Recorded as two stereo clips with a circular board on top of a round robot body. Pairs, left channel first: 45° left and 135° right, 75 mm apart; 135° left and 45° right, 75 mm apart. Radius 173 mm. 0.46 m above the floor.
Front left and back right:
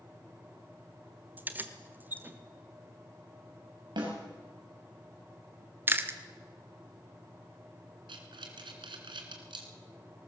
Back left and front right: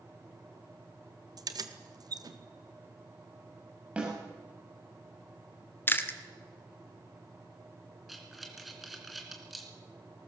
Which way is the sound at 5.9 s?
Straight behind.